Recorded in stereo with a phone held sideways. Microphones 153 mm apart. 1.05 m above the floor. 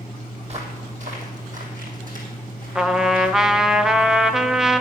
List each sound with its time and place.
0.4 s footsteps: 45° right (ahead or behind), 2.0 m; by 3.8 s 70° right (ahead or behind), 3.5 m
2.8 s a trumpet: 5° right (ahead or behind), 0.5 m